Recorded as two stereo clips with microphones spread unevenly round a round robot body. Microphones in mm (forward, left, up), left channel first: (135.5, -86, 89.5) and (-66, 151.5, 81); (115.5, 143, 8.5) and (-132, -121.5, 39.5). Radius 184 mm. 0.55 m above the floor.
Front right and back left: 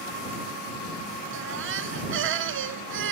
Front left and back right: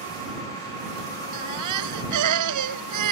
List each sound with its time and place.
1.3 s a baby crying: 175° right